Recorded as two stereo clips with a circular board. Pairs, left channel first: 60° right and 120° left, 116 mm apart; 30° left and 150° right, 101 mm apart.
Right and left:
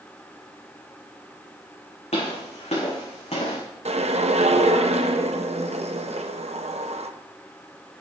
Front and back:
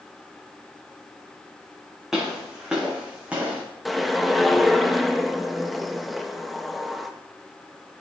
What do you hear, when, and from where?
2.1 s footsteps: 65° right, 4.5 m; by 3.6 s 75° right, 4.5 m
3.9 s a whoosh: 120° left, 0.7 m